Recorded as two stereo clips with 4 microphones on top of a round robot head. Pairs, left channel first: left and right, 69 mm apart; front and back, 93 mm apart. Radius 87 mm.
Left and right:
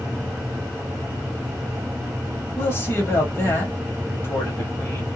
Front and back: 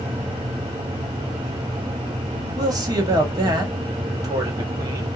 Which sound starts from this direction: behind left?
A man speaking, at 2.6 s.